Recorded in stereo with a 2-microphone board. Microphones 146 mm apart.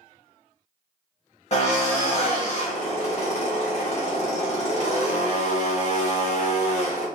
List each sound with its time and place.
1.5 s a drill: 50° left (ahead or behind), 1.6 m